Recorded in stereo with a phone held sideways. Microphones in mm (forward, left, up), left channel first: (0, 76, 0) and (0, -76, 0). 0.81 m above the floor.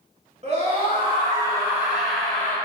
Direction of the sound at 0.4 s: 40° right (ahead or behind).